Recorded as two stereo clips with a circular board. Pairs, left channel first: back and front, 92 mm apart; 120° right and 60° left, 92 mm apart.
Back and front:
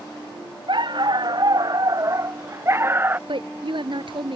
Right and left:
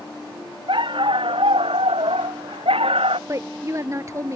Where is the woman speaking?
5° left.